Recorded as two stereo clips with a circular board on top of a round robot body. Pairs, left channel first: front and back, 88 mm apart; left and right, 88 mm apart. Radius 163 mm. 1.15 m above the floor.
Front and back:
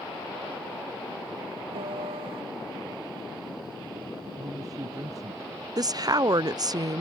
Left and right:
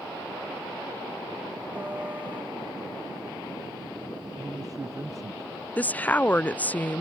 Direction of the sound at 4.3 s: 135° right.